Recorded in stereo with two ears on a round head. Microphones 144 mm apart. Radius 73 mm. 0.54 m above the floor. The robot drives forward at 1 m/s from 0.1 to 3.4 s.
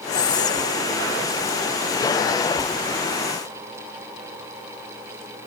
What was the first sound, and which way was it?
Whispering, 20° left (ahead or behind).